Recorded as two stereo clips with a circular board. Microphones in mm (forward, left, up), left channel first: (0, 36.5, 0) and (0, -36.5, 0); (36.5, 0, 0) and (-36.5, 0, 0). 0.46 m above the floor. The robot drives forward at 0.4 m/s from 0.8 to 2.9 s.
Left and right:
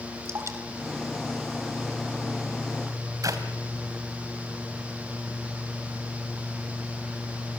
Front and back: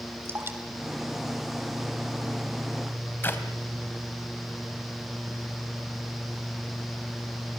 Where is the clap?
60° right, 2.5 m.